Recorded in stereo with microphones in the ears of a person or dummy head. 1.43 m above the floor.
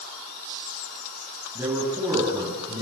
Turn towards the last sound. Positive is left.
turn(degrees=-20)  # may be behind; listen again after turning